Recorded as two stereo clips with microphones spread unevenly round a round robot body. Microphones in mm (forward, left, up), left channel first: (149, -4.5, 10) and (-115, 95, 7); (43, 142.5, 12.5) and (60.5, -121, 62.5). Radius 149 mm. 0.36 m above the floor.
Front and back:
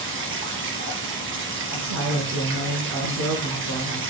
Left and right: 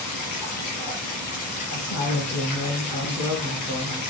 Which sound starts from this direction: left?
Running water, at 0.0 s.